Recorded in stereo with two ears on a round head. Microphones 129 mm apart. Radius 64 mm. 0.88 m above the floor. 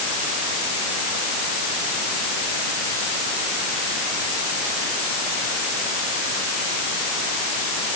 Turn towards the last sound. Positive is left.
No sound to turn to.